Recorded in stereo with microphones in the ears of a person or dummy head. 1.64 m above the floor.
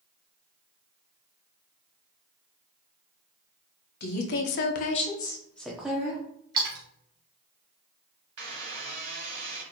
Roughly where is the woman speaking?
Left.